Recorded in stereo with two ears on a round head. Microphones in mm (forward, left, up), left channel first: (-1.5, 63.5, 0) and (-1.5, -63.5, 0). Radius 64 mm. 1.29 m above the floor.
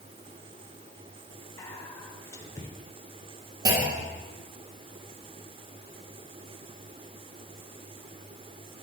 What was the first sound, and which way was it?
Whispering, 20° left (ahead or behind).